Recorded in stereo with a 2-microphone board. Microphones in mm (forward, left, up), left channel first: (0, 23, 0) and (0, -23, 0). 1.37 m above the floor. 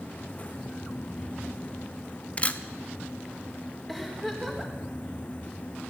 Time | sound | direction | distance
2.4 | a camera shutter | 35° left (ahead or behind) | 1.1 m
3.9 | a giggle | centre (ahead or behind) | 4.5 m